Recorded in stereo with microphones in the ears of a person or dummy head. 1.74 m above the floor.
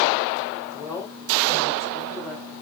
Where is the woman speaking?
15° left (ahead or behind), 4 m; by 2.5 s 10° left (ahead or behind), 5 m.